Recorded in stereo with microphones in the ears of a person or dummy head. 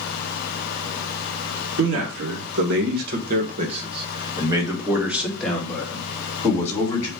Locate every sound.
1.8 s a man speaking: 80° right, 1.8 m; by 7.1 s 20° left (ahead or behind), 2.5 m